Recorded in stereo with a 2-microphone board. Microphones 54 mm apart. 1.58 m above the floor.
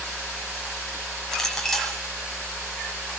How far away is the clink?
About 9 m.